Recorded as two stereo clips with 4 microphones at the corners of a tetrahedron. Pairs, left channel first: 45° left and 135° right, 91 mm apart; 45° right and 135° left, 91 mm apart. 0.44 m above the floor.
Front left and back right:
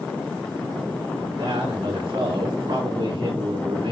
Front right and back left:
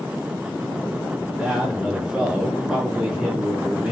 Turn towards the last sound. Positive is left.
turn(degrees=-145)